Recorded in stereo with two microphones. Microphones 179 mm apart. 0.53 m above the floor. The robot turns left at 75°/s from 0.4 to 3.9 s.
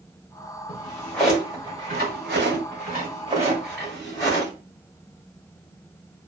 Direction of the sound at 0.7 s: 40° left (ahead or behind).